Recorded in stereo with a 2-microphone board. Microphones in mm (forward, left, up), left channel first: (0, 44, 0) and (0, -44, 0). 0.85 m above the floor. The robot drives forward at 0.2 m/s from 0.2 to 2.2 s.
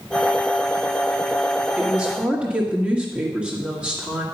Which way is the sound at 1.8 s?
15° right (ahead or behind).